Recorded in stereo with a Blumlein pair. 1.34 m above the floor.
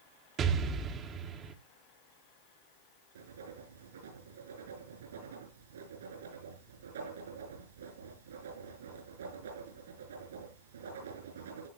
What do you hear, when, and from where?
0.4 s an explosion: 30° right, 1.2 m
3.1 s writing: 65° right, 5.5 m